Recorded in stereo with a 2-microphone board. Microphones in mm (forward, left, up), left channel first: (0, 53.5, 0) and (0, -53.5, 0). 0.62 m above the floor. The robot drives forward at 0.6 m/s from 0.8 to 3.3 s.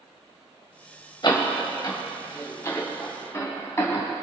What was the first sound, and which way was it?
A door slam, 45° left (ahead or behind).